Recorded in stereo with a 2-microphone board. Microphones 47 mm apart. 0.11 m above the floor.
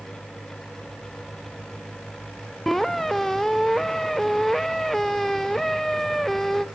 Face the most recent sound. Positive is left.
turn(degrees=5)  # may be behind; listen again after turning